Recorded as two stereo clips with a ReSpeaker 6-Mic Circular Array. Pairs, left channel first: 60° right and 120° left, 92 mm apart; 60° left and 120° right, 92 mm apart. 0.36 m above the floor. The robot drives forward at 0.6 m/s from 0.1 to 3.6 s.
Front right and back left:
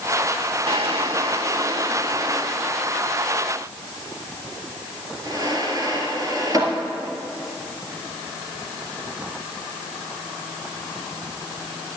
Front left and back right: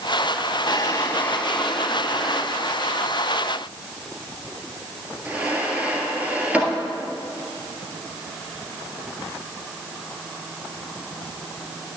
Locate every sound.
0.7 s a drawer: 100° left, 0.5 m; by 6.7 s 165° left, 1.9 m